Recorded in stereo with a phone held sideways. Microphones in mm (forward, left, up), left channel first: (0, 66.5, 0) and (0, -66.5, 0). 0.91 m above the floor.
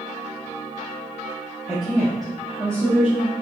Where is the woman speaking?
10° right (ahead or behind), 1.1 m; by 3.3 s 10° left (ahead or behind), 2 m.